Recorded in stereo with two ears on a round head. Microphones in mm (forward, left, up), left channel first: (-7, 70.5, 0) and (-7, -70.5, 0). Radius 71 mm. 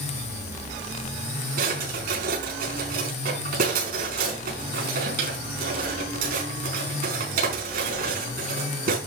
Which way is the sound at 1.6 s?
60° right (ahead or behind).